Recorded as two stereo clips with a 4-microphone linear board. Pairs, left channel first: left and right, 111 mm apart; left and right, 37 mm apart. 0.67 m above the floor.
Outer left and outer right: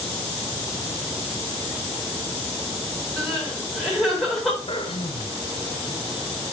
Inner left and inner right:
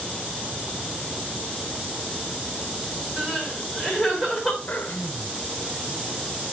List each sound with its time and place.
3.2 s crying: centre (ahead or behind), 4.5 m
4.7 s throat clearing: 50° left (ahead or behind), 1.7 m